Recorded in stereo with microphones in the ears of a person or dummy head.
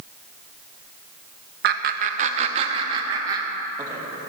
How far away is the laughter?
About 0.8 m.